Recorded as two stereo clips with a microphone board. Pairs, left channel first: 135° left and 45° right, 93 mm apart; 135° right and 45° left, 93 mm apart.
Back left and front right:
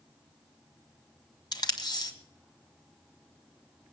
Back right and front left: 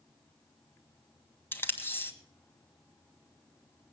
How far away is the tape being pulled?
About 1.4 m.